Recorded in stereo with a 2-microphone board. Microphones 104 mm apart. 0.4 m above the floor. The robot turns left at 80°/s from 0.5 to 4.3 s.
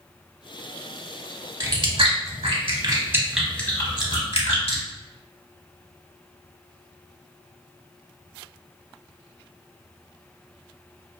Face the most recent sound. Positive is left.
turn(degrees=70)  # may be behind; listen again after turning